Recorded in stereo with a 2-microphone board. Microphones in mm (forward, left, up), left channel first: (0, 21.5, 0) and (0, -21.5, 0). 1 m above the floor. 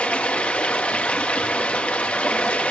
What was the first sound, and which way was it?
Running water, 30° left (ahead or behind).